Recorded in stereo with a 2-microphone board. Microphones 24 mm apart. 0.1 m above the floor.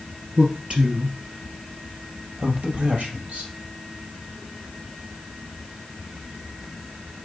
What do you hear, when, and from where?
0.4 s a man speaking: 45° right (ahead or behind), 2 m; by 3.5 s 50° right (ahead or behind), 3.5 m